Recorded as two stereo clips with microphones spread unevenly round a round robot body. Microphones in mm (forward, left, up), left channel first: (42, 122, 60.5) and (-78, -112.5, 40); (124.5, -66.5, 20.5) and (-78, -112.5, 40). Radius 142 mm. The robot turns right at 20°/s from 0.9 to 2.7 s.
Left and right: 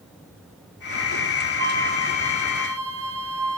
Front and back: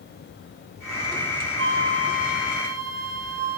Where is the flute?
150° right, 3.5 m; by 3.6 s 125° right, 3.5 m.